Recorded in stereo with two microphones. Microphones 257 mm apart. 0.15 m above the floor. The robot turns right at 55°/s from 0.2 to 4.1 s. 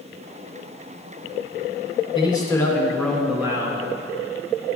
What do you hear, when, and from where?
2.1 s a man speaking: 20° left (ahead or behind), 1.7 m; by 3.8 s 15° right (ahead or behind), 1.7 m